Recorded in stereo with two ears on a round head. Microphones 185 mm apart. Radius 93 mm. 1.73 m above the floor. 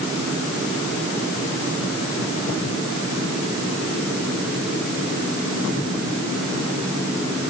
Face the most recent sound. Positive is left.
No sound to turn to.